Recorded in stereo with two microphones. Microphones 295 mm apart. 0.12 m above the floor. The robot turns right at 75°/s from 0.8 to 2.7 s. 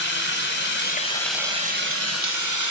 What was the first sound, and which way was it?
Running water, 140° left.